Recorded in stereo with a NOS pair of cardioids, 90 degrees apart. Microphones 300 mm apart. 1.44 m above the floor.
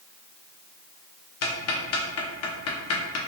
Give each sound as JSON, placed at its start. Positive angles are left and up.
{"t": 1.4, "sound": "ticking", "azimuth_deg": 55, "distance_m": 0.6}